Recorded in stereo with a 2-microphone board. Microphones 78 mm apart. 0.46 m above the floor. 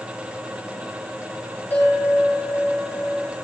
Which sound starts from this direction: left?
A bell, at 1.7 s.